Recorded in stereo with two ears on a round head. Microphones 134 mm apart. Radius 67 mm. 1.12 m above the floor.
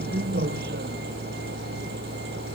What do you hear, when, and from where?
0.0 s a vehicle: 70° right (ahead or behind); by 2.5 s 80° right